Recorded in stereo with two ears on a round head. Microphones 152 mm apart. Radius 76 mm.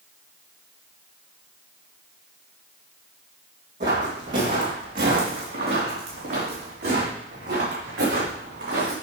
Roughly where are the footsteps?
Right.